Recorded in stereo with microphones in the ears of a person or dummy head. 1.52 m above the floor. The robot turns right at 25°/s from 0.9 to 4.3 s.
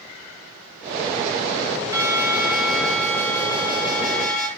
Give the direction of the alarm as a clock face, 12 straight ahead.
1 o'clock.